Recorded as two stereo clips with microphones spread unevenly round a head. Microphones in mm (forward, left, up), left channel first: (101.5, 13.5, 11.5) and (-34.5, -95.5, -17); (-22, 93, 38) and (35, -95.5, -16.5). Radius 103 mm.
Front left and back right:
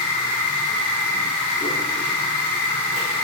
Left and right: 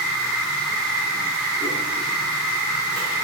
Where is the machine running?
35° left, 1.6 m.